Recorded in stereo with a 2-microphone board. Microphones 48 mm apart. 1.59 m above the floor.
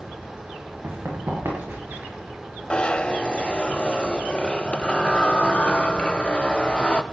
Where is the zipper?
25° left (ahead or behind), 0.6 m.